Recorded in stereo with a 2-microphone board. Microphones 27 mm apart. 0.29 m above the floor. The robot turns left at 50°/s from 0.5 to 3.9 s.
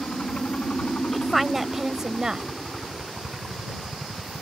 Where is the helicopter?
105° left; by 4.4 s 65° right.